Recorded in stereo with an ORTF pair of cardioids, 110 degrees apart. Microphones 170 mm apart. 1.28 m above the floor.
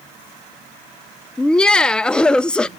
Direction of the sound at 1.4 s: 5° left.